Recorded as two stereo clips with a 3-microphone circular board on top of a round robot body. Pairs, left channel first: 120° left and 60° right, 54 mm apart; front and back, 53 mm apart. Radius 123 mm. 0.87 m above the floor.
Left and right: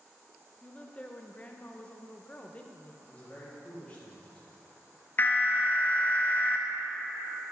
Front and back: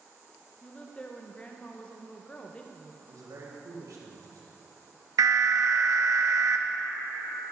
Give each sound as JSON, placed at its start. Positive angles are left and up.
{"t": 0.6, "sound": "a woman speaking", "azimuth_deg": 60, "distance_m": 0.8}
{"t": 3.1, "sound": "a man speaking", "azimuth_deg": -170, "distance_m": 2.0}
{"t": 5.2, "sound": "an alarm", "azimuth_deg": 180, "distance_m": 0.6}